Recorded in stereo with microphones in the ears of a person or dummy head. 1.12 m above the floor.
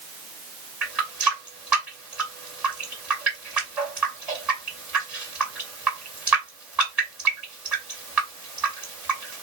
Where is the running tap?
5° right (ahead or behind), 2 m.